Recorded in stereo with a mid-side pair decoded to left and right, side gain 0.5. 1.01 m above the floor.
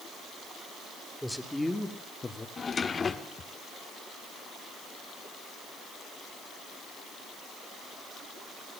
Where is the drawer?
35° left, 1.3 m.